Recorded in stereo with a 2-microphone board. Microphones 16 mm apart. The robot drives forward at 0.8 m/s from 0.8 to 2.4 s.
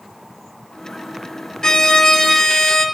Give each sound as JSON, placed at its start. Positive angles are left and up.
{"t": 1.6, "sound": "a violin", "side_deg": 55, "distance_m": 0.5}